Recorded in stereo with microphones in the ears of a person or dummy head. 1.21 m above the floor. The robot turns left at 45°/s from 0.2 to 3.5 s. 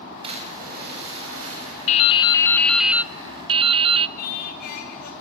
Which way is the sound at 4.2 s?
55° left (ahead or behind).